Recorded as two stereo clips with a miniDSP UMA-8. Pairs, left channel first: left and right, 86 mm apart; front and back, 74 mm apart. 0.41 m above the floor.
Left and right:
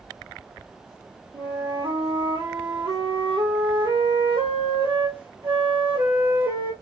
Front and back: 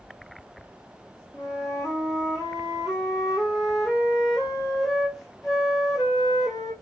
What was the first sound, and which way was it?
A flute, 90° right.